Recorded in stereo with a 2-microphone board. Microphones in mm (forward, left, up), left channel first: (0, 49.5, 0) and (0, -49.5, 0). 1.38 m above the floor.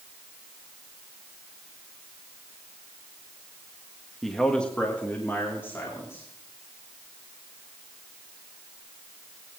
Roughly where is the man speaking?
Centre.